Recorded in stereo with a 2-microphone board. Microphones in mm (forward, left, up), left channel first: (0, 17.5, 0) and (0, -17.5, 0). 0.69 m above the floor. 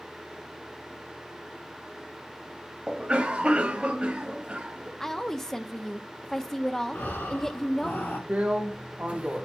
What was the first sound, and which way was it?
A cough, 30° right (ahead or behind).